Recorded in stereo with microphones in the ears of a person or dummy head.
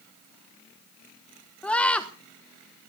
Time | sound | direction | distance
1.6 | a scream | 5° left (ahead or behind) | 0.9 m